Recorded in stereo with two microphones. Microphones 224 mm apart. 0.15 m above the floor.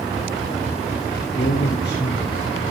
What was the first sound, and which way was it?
A man speaking, 55° left (ahead or behind).